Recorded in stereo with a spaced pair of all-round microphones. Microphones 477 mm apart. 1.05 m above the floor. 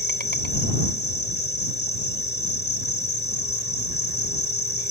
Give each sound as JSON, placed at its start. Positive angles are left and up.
{"t": 0.0, "sound": "an insect", "side_deg": 20}